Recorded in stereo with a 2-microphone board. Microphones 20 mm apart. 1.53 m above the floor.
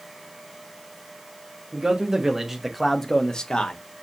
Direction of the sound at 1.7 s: 35° right (ahead or behind).